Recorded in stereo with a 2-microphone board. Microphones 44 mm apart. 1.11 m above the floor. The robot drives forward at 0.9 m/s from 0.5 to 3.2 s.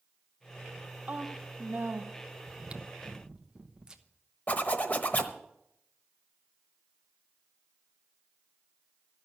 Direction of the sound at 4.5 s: 40° left (ahead or behind).